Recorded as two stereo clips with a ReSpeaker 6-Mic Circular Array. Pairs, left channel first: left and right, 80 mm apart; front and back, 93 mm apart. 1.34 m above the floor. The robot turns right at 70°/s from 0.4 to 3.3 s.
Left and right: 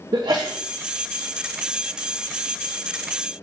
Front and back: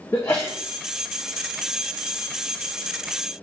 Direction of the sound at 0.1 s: 60° right.